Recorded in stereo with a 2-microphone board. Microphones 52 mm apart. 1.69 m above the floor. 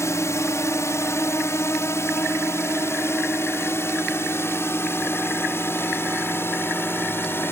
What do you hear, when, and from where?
0.0 s a drone: 65° left (ahead or behind); by 7.5 s 50° left (ahead or behind)